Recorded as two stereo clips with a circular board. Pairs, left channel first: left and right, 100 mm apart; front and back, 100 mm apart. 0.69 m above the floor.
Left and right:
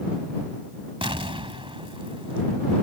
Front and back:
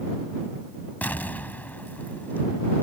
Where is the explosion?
75° right.